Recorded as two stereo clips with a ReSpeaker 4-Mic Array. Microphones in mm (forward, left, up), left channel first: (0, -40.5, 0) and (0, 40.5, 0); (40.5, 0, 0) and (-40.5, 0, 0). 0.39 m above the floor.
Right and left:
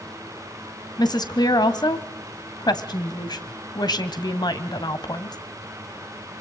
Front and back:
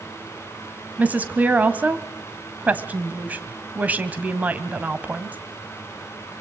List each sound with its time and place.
1.0 s a woman speaking: 110° right, 2 m